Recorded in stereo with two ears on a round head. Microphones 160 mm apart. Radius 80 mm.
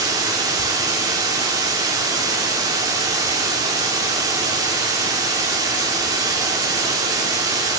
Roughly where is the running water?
Right.